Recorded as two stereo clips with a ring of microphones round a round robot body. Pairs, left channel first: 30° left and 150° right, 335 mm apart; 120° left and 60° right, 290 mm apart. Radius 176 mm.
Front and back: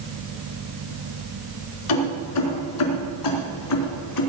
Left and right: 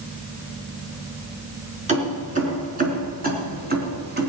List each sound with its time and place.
1.9 s keys jangling: 5° left, 4.5 m; by 4.3 s 5° right, 3.5 m